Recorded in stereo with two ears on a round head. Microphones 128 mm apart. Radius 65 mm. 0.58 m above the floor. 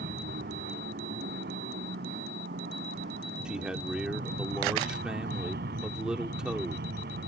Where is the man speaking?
5° right (ahead or behind).